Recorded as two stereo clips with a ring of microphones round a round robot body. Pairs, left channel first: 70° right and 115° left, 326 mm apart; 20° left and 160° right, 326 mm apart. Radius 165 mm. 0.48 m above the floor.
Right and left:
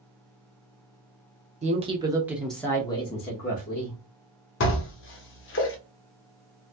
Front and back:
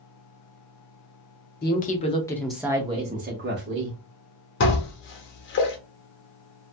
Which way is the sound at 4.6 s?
25° right.